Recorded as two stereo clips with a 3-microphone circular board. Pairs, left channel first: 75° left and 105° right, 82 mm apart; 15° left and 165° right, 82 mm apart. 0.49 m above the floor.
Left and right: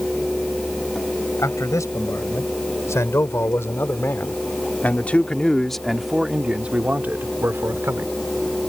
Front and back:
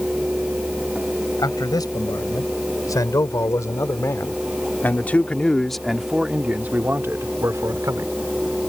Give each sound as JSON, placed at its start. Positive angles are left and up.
{"t": 1.4, "sound": "a man speaking", "azimuth_deg": 35}